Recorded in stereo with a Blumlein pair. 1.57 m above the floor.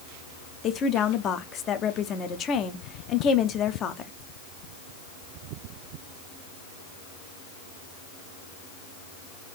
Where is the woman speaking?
30° left, 0.7 m.